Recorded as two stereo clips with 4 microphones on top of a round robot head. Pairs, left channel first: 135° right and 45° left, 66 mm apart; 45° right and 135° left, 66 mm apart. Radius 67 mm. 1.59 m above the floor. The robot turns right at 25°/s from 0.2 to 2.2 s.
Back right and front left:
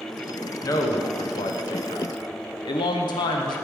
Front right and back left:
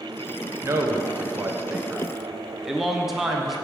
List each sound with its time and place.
0.6 s a man speaking: 175° right, 0.9 m; by 3.6 s 135° right, 0.9 m